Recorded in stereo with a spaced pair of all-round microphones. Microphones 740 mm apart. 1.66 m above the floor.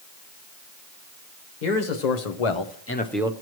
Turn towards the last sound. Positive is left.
turn(degrees=-10)  # may be behind; listen again after turning